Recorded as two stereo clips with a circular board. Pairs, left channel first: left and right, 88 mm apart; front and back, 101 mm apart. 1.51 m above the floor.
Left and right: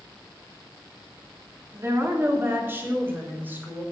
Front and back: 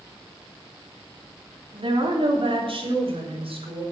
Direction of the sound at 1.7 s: 150° right.